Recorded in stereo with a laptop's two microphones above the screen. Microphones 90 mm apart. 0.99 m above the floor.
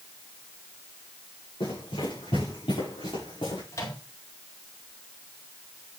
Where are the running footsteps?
80° left, 7.5 m; by 3.6 s 75° left (ahead or behind), 6.5 m.